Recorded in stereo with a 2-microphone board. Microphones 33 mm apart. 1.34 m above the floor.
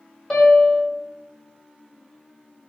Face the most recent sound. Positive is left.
turn(degrees=15)  # may be behind; listen again after turning